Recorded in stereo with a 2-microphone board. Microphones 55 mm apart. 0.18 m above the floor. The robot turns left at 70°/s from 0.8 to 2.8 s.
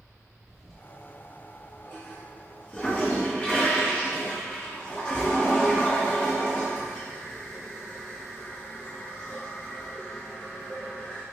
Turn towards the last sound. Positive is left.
turn(degrees=20)  # may be behind; listen again after turning